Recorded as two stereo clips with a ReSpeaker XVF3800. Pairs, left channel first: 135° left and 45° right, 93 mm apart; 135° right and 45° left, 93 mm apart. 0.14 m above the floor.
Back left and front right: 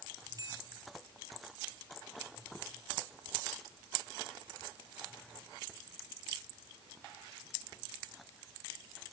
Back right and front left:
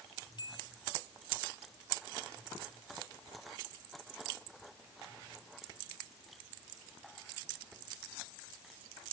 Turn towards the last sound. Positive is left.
turn(degrees=-95)